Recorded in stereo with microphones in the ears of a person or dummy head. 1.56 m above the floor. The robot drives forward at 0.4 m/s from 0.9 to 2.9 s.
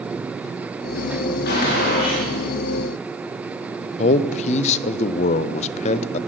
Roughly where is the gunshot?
Left.